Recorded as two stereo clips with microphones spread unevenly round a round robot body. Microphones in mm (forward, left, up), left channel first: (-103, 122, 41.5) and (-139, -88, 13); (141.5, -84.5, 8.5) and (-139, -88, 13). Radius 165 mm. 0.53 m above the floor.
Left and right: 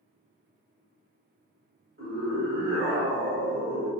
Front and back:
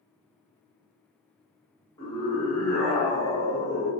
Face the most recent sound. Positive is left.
turn(degrees=-75)